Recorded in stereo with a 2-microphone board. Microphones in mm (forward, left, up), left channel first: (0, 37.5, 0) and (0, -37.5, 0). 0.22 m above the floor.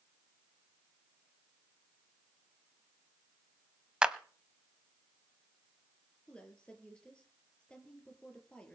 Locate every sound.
4.0 s a clap: 10° right (ahead or behind), 0.9 m
6.3 s a woman speaking: 15° left (ahead or behind), 4 m